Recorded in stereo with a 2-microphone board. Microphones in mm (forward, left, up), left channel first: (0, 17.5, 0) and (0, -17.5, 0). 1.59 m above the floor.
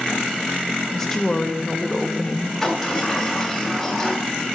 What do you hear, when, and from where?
0.9 s a woman speaking: 15° left (ahead or behind), 1.4 m
2.6 s a sliding door: 5° left (ahead or behind), 2.5 m